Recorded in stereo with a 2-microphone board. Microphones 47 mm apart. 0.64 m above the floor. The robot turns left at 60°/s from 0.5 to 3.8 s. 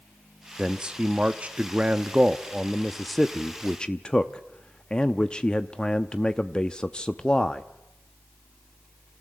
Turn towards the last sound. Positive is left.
turn(degrees=20)  # may be behind; listen again after turning